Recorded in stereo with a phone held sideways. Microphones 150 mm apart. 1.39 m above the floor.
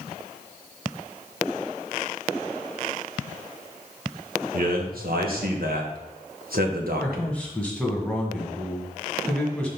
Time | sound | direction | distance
4.5 | a man speaking | 75° right (ahead or behind) | 1.4 m
7.0 | a man speaking | 5° left (ahead or behind) | 1.7 m